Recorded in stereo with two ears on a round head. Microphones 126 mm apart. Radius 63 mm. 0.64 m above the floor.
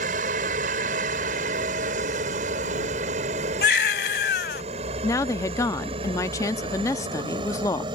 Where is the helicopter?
60° right (ahead or behind); by 8.0 s 30° right (ahead or behind).